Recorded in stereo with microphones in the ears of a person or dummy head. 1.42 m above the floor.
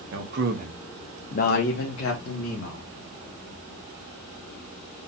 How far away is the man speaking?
About 1.1 m.